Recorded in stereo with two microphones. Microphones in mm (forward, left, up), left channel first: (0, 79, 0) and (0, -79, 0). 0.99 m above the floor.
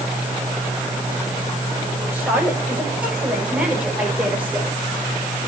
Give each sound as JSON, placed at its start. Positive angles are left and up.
{"t": 2.1, "sound": "a woman speaking", "side_deg": -10, "distance_m": 6.0}